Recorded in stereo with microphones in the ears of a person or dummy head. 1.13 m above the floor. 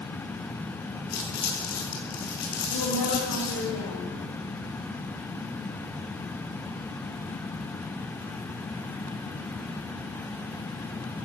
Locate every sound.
1.1 s crumpling: 45° left (ahead or behind), 5 m
2.7 s a woman speaking: 65° left (ahead or behind), 6.5 m